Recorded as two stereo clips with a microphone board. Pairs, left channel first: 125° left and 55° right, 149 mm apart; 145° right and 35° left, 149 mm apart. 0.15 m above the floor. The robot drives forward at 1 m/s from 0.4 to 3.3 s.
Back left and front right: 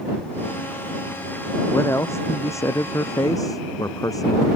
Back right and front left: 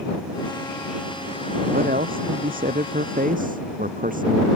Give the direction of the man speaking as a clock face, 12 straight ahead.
10 o'clock.